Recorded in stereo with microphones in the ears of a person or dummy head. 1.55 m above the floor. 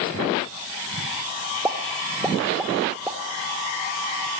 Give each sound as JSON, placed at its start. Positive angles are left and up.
{"t": 1.6, "sound": "a pop", "side_deg": -10, "distance_m": 2.0}